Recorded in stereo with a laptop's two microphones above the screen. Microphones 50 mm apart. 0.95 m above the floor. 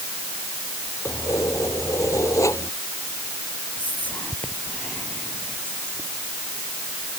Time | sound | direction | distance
1.1 | keys jangling | 80° left | ?
3.8 | whispering | 30° left (ahead or behind) | ?